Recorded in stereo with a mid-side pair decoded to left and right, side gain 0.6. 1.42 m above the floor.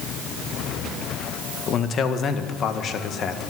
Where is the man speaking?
45° left, 1.7 m.